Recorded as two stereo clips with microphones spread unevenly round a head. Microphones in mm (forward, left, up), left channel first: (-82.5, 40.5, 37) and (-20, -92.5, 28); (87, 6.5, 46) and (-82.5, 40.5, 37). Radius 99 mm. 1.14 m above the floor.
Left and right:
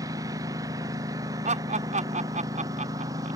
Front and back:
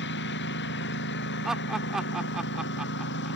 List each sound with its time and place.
0.0 s a lawn mower: 10° left
1.4 s laughter: 105° right